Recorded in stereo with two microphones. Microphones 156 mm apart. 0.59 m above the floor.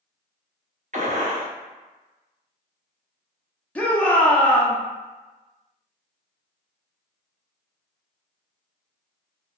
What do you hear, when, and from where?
0.9 s a gunshot: 50° right (ahead or behind), 0.8 m
3.8 s a shout: 10° left (ahead or behind), 0.6 m